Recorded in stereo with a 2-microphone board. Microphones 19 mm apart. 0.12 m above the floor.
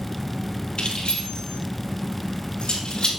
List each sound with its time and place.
0.8 s keys jangling: 65° left (ahead or behind), 2.5 m; by 3.1 s 60° left (ahead or behind), 3 m